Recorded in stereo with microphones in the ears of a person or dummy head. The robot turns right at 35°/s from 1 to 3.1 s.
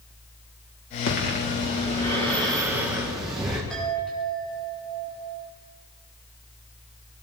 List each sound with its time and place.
1.1 s breathing: 130° left, 4 m; by 3.6 s 160° right, 4 m
3.7 s a chime: 10° right (ahead or behind), 7 m